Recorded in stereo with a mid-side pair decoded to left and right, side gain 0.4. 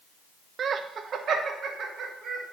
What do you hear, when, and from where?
0.6 s laughter: 60° right, 0.5 m